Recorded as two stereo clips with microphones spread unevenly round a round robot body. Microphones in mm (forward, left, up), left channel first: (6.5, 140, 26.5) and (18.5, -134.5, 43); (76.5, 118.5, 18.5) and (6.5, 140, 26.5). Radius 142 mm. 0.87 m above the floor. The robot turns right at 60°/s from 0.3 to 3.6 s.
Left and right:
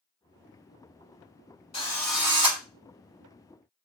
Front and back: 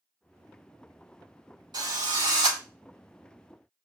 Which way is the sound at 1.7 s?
160° left.